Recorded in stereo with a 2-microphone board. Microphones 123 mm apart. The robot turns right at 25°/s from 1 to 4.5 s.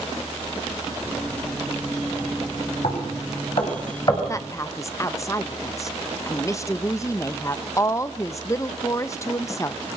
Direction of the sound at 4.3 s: 25° left (ahead or behind).